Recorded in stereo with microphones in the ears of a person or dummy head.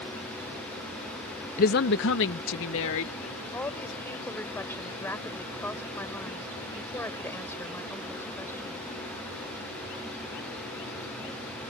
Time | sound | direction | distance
1.6 | a woman speaking | 45° left (ahead or behind) | ?
3.5 | a woman speaking | 10° left (ahead or behind) | ?